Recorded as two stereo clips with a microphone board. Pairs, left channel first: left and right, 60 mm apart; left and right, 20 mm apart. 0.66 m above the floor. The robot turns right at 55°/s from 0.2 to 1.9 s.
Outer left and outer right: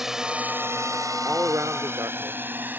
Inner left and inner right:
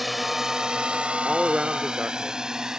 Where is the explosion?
I don't hear an explosion.